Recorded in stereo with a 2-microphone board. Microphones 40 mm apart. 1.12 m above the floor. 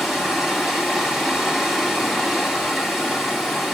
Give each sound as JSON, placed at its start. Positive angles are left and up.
{"t": 0.0, "sound": "running water", "side_deg": -10, "distance_m": 5.0}